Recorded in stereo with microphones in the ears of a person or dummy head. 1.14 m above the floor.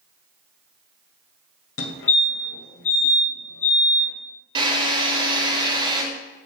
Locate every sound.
1.8 s a fire alarm: 60° left (ahead or behind), 1.9 m
4.5 s a drill: 25° right (ahead or behind), 3 m